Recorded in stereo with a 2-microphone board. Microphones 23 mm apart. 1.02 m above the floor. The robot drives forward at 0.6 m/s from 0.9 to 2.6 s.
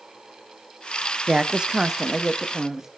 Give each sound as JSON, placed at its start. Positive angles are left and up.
{"t": 1.3, "sound": "a woman speaking", "side_deg": -40, "distance_m": 0.7}